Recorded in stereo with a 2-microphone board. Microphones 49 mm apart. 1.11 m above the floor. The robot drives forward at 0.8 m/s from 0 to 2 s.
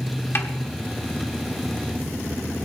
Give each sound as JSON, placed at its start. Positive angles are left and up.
{"t": 0.3, "sound": "a snare drum", "side_deg": 50, "distance_m": 1.5}